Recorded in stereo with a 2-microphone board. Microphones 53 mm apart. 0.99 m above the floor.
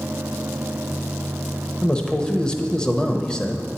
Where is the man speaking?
15° left (ahead or behind), 0.7 m.